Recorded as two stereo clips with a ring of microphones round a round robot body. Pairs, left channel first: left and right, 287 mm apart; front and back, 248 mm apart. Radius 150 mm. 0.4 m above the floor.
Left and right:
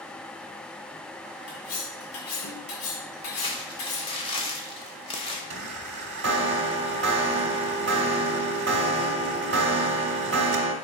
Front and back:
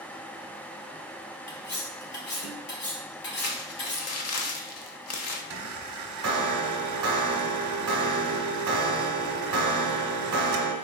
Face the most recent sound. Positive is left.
turn(degrees=-145)